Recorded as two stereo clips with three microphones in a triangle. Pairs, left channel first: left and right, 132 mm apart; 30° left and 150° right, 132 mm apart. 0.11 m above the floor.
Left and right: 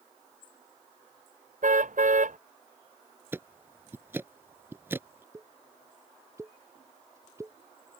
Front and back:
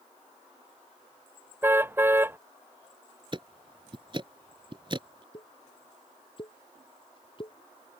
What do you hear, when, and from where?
1.6 s a car horn: 75° right
3.3 s ticking: 150° right
5.3 s a pop: 20° right